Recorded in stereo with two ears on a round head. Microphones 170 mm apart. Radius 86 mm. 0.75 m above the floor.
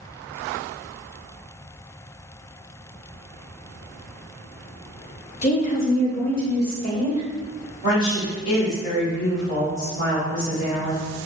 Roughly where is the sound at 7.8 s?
Left.